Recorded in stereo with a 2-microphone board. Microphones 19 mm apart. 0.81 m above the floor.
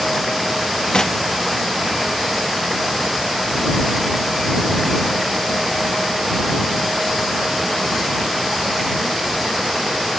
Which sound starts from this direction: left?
Knocking, at 0.9 s.